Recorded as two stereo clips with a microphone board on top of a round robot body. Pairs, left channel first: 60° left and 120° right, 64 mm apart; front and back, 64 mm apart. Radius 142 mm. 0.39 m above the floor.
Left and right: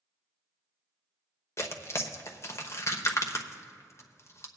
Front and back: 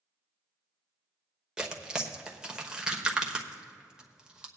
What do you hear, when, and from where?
1.6 s tearing paper: 100° left, 1.1 m